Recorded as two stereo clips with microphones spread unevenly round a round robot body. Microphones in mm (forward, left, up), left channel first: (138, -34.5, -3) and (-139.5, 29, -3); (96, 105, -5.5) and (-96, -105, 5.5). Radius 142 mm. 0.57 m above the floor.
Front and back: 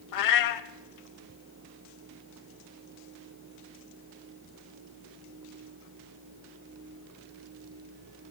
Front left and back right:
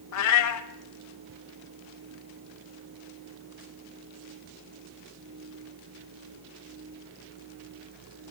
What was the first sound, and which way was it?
A cat meowing, 10° left.